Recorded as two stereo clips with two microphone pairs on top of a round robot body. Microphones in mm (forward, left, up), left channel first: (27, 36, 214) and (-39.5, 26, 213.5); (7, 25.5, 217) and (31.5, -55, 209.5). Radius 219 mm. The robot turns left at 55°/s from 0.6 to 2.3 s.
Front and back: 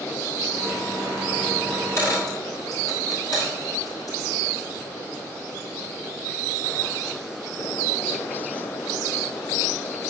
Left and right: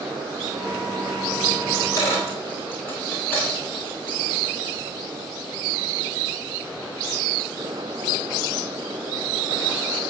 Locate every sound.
1.7 s a dropped coin: 75° left, 7 m; by 4.4 s 40° left, 7 m